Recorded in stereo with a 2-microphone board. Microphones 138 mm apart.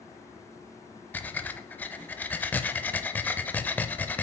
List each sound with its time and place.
1.1 s breathing: 10° left (ahead or behind), 0.6 m